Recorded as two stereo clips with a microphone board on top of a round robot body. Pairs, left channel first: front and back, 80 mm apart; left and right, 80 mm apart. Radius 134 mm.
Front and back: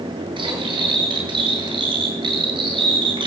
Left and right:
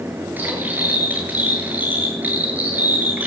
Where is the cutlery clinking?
160° right, 10 m.